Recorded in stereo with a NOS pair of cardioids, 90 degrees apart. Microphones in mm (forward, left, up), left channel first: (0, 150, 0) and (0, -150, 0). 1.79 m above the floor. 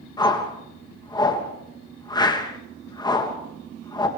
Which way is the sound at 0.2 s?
15° left.